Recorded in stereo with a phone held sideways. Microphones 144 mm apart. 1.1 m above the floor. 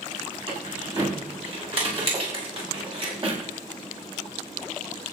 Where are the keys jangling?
45° right (ahead or behind), 6 m; by 3.4 s 40° right (ahead or behind), 4.5 m.